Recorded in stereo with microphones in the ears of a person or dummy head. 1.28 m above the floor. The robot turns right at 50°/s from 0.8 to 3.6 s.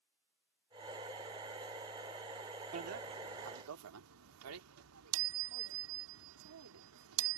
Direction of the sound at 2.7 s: 30° right (ahead or behind).